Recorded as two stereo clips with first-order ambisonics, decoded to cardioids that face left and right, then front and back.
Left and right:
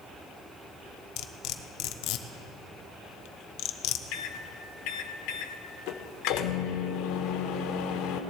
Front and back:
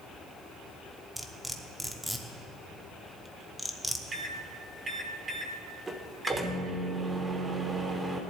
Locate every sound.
1.2 s cutlery clinking: 95° left, 0.7 m
4.1 s a microwave: 105° left, 1.0 m